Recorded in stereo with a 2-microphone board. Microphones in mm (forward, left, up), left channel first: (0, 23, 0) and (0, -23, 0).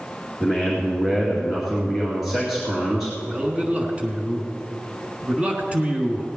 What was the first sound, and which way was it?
A man speaking, 5° right (ahead or behind).